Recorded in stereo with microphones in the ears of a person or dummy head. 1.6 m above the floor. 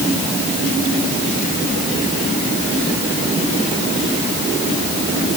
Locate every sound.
Only background noise.